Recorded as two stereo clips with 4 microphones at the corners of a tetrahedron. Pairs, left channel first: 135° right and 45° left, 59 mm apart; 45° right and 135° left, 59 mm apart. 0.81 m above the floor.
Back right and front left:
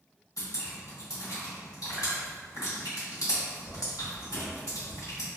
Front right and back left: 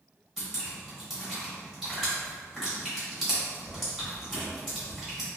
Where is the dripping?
140° right, 1.3 m.